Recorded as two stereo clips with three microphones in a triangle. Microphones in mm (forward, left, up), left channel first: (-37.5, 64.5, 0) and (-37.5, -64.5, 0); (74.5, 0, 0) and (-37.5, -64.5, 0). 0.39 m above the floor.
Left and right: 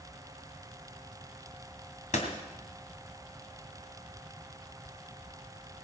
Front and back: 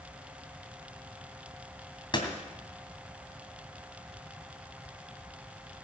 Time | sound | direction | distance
2.1 | a door slam | 80° left | 2.5 m